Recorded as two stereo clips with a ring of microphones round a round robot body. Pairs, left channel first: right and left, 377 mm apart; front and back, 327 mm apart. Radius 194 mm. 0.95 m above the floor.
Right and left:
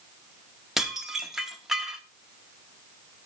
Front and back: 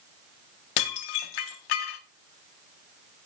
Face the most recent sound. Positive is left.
turn(degrees=0)